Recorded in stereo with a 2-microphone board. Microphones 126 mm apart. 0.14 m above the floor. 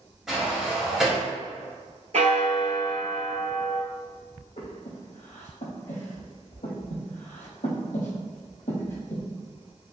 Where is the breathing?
75° left (ahead or behind), 1.2 m.